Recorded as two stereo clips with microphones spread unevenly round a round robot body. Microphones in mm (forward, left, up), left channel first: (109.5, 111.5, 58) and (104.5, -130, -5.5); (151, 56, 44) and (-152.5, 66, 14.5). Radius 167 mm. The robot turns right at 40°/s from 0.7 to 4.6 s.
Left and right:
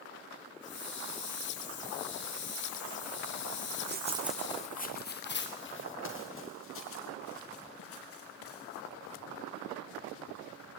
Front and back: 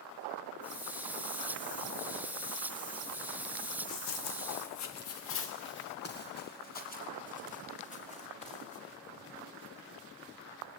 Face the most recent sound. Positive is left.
turn(degrees=65)